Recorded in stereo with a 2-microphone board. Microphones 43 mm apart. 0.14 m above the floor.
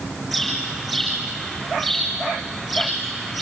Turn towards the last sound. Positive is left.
turn(degrees=-5)  # may be behind; listen again after turning